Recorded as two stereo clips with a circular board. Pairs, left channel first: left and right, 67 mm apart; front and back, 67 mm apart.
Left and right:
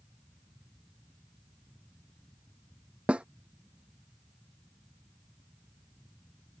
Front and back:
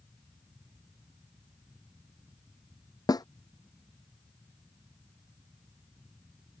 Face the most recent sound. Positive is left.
turn(degrees=-15)